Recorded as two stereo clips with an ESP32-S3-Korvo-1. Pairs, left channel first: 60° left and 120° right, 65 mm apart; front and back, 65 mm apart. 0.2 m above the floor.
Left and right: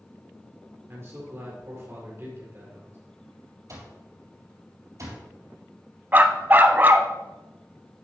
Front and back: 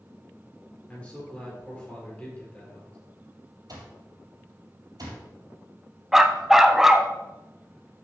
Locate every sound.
0.9 s a man speaking: 70° right, 3.5 m
3.7 s an alarm clock: 160° right, 3 m
6.1 s a dog barking: 105° right, 0.5 m